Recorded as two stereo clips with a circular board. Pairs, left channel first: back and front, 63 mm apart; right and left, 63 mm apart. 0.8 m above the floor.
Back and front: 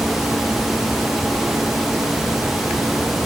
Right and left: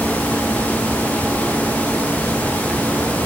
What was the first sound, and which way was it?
Only background noise.